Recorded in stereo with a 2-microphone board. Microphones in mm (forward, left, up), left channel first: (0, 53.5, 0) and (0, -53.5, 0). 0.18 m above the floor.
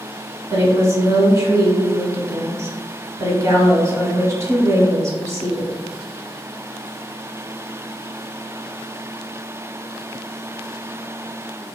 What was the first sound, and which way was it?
A woman speaking, 30° right (ahead or behind).